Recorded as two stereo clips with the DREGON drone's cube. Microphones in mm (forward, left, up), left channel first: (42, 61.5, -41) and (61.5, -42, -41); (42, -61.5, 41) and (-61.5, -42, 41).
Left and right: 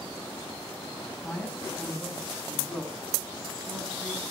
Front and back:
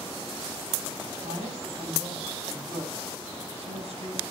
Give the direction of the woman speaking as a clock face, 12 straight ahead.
6 o'clock.